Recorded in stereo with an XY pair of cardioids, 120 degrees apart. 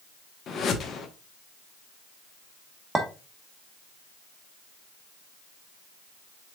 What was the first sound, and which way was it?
A whoosh, 55° left.